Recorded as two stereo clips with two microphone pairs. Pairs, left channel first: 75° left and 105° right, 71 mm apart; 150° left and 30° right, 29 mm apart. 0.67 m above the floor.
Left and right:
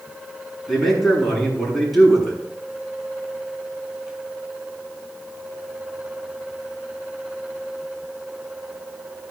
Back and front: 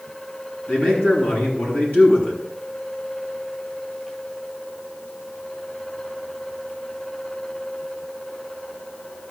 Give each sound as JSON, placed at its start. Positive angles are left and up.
{"t": 0.7, "sound": "a man speaking", "azimuth_deg": 160, "distance_m": 6.5}